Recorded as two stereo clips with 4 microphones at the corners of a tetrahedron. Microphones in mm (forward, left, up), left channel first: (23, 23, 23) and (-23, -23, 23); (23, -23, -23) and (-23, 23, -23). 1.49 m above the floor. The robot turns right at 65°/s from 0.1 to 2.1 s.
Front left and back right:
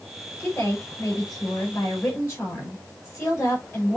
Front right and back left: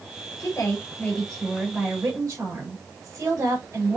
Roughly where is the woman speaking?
Ahead.